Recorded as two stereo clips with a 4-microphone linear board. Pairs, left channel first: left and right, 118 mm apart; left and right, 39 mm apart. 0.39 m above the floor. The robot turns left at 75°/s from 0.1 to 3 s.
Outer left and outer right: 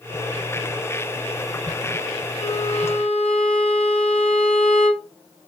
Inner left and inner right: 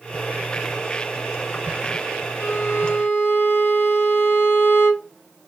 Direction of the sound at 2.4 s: 110° left.